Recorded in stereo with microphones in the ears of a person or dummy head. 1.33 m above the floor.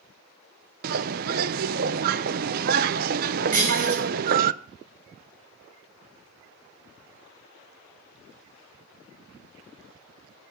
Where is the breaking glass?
45° right (ahead or behind), 4.5 m.